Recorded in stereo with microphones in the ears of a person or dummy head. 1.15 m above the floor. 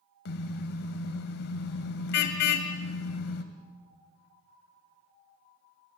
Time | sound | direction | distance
0.2 | a car horn | 65° left (ahead or behind) | 2.5 m